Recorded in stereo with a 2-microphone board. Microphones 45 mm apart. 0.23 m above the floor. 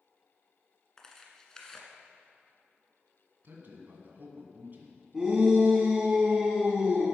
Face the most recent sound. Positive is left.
turn(degrees=-15)  # may be behind; listen again after turning